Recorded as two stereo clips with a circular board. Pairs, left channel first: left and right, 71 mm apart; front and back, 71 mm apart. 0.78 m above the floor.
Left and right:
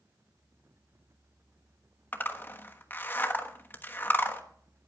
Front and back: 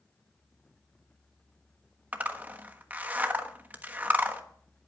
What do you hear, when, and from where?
2.1 s a zipper: 130° left, 1.2 m